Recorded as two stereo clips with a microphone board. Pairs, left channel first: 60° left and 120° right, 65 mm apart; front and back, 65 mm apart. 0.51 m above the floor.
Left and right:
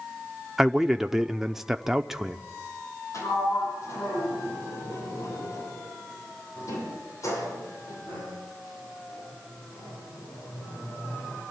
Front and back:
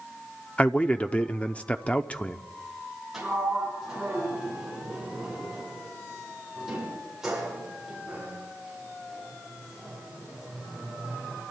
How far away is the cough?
I don't hear a cough.